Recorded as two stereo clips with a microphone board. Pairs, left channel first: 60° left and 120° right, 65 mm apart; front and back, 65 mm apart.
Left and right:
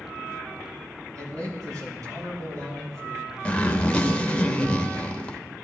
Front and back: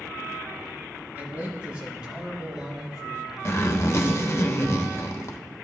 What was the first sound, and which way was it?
A man speaking, 115° right.